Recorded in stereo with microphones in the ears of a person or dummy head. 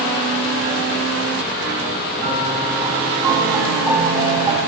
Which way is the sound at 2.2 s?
25° right (ahead or behind).